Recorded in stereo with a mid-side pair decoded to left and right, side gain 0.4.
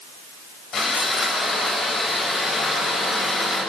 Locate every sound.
0.7 s sawing: 55° left, 9 m